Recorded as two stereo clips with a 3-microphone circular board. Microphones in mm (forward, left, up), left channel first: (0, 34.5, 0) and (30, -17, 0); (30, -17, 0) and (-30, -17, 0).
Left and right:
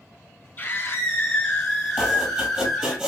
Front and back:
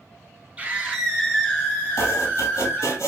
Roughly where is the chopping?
Ahead.